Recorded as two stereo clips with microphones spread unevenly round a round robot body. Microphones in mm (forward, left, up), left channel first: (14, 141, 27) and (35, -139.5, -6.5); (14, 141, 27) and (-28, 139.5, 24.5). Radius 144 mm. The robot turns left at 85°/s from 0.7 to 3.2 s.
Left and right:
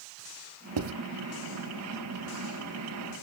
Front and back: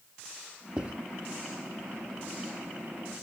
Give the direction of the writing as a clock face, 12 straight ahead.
3 o'clock.